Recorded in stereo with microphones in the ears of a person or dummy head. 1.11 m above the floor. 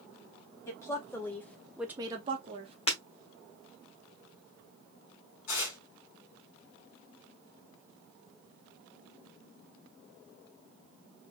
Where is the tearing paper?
70° left (ahead or behind), 3 m.